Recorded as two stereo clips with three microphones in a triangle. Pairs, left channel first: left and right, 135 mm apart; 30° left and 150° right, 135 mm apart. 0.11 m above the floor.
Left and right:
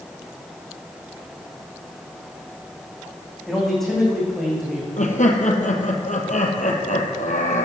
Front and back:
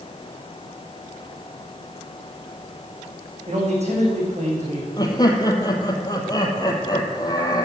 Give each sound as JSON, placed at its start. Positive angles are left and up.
{"t": 3.5, "sound": "a man speaking", "azimuth_deg": 175, "distance_m": 6.5}
{"t": 5.0, "sound": "laughter", "azimuth_deg": 90, "distance_m": 3.0}